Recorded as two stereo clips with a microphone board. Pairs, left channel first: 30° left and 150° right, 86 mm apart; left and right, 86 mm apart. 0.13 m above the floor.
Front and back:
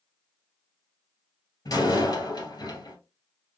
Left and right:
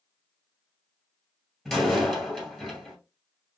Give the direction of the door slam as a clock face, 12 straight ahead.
12 o'clock.